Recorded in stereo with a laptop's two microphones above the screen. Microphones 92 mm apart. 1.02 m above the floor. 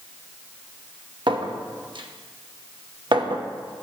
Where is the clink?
65° right (ahead or behind), 0.9 m.